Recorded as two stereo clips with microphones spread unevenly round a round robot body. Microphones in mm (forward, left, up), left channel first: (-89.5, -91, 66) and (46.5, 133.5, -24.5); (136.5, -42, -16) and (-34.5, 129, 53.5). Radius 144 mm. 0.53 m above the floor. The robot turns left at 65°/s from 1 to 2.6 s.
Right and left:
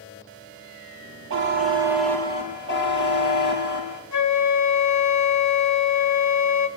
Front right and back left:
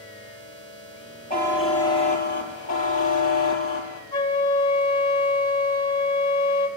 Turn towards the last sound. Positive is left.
turn(degrees=-110)